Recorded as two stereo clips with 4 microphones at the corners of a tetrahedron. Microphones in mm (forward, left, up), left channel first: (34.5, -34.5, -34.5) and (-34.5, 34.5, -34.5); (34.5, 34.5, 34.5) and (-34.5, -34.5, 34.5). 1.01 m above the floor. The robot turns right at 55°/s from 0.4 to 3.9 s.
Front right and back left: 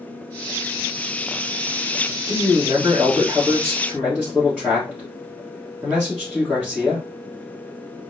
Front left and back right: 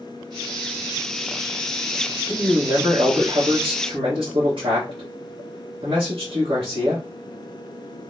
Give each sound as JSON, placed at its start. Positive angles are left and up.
{"t": 2.3, "sound": "a man speaking", "azimuth_deg": 145, "distance_m": 1.3}